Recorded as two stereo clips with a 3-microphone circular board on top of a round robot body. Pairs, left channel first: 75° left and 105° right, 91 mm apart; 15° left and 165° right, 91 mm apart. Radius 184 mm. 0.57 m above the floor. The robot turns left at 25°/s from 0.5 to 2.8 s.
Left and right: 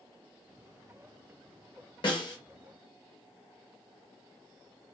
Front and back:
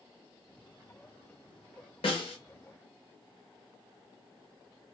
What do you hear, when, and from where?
2.0 s a snare drum: 35° left, 1.2 m; by 2.4 s 30° left, 1.2 m